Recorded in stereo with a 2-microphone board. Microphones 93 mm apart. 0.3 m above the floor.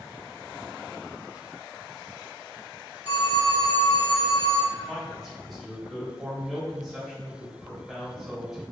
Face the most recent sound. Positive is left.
turn(degrees=0)  # may be behind; listen again after turning